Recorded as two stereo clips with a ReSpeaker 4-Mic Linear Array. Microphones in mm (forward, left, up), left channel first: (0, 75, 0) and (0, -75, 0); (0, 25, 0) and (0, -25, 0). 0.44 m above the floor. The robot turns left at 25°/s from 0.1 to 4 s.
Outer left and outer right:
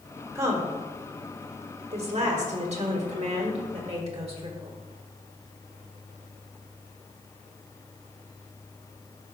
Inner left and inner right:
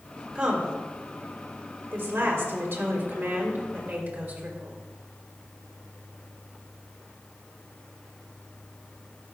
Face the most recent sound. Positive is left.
turn(degrees=-45)  # may be behind; listen again after turning